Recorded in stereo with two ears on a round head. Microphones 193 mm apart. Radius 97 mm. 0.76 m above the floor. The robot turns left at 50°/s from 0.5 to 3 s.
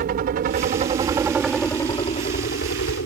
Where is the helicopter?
130° right; by 3.1 s 105° left.